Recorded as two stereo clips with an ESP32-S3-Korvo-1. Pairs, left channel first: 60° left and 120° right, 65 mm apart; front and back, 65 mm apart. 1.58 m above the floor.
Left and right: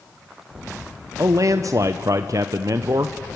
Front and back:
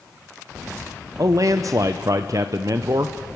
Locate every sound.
1.2 s a man speaking: 150° right, 0.7 m